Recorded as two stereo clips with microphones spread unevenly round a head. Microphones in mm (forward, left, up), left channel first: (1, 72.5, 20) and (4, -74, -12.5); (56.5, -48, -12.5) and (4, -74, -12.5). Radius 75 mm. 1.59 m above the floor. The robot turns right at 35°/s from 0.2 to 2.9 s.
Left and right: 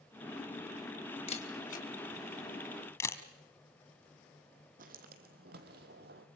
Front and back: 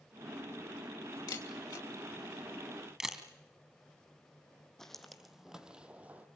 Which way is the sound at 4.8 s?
55° right.